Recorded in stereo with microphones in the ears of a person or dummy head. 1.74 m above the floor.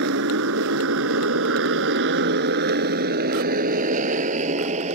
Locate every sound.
0.0 s a motorcycle: 65° right (ahead or behind); by 5.0 s 40° right (ahead or behind)